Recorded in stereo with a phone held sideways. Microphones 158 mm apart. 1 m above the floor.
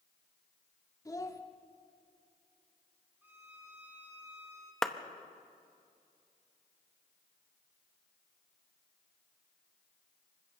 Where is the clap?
5° left (ahead or behind), 0.9 m.